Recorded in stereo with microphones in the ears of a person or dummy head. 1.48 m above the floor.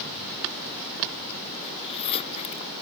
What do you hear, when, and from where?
1.6 s a zipper: 30° left (ahead or behind)